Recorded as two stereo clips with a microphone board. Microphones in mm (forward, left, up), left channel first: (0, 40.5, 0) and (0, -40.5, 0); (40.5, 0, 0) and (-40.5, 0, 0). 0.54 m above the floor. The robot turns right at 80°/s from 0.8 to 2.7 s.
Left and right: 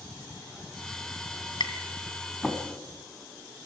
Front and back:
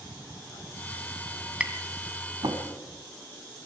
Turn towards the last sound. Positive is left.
turn(degrees=-170)